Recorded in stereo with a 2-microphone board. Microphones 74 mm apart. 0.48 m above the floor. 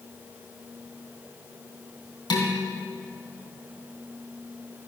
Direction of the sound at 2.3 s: 75° left (ahead or behind).